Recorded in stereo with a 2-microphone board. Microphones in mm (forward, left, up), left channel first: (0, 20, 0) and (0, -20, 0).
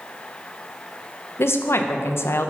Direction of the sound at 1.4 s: 75° left (ahead or behind).